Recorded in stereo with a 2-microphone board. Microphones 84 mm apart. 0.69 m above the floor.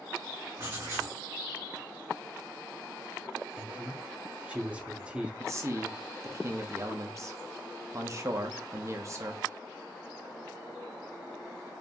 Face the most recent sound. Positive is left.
turn(degrees=-40)  # may be behind; listen again after turning